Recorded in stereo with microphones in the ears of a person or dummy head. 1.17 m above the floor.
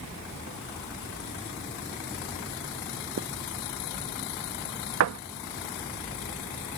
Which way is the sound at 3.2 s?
55° right (ahead or behind).